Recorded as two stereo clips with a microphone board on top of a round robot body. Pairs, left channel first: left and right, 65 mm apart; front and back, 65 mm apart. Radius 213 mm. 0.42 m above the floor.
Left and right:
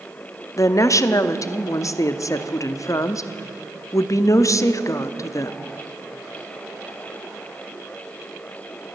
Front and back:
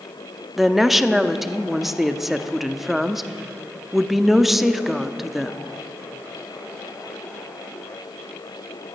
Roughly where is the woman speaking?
Left.